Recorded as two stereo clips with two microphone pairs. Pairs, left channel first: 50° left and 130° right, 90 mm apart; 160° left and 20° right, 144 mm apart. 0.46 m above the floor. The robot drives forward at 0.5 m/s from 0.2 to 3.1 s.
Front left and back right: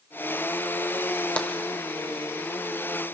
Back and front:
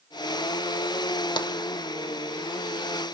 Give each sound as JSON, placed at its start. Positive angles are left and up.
{"t": 1.4, "sound": "tapping", "azimuth_deg": 125, "distance_m": 1.4}